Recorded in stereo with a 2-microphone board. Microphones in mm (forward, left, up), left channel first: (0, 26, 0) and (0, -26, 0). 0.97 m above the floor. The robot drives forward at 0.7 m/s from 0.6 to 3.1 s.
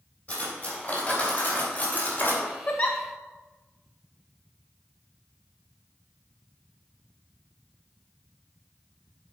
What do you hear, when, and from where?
0.3 s cutlery clinking: 20° left (ahead or behind), 3 m; by 2.5 s 40° left (ahead or behind), 1.9 m
2.7 s a giggle: 35° left (ahead or behind), 0.8 m; by 3.0 s 30° left (ahead or behind), 0.9 m